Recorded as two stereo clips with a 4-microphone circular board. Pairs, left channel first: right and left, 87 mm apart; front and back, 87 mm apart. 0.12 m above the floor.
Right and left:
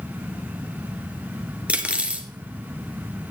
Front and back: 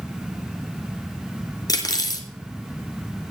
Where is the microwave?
No microwave in this recording.